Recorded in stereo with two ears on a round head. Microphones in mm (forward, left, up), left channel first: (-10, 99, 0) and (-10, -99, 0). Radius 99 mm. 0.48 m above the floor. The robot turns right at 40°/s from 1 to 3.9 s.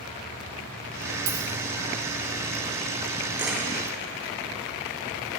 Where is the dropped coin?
45° right (ahead or behind), 2 m; by 1.5 s 35° right (ahead or behind), 2 m.